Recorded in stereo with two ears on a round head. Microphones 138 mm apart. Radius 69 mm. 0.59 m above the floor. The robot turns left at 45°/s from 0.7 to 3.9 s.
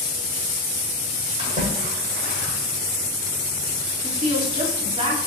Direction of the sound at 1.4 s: 40° right (ahead or behind).